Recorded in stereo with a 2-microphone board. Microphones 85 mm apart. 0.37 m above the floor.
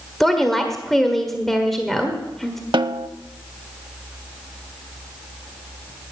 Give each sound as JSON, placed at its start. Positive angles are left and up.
{"t": 0.2, "sound": "a woman speaking", "side_deg": 5, "distance_m": 1.5}
{"t": 2.7, "sound": "a snare drum", "side_deg": -70, "distance_m": 0.6}